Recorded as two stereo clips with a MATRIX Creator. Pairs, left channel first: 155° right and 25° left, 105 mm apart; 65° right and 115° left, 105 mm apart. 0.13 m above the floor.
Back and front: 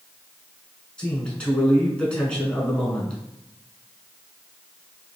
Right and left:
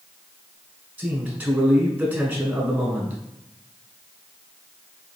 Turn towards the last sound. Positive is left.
turn(degrees=140)